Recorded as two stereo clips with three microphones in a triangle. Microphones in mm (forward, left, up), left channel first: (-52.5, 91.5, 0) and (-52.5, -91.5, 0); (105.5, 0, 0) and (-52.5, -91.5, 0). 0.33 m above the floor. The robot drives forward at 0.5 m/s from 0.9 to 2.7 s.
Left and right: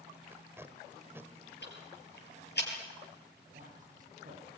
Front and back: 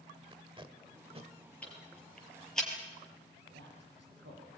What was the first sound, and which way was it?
Tape being pulled, 150° right.